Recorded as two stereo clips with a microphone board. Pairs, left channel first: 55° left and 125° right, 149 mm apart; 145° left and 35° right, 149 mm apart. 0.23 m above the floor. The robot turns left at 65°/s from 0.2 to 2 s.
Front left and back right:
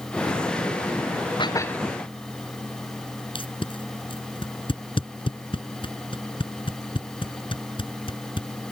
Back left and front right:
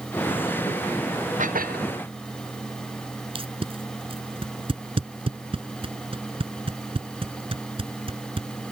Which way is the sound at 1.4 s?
Straight ahead.